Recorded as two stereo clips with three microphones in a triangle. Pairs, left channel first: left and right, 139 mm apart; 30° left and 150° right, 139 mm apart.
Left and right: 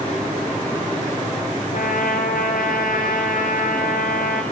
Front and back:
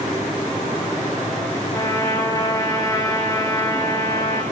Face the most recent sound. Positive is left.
turn(degrees=95)